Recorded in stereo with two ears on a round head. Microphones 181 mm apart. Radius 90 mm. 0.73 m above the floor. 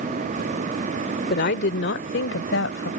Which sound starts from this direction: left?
A woman speaking, at 1.3 s.